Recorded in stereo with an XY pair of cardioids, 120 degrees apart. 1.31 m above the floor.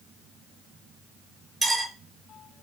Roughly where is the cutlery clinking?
Ahead right.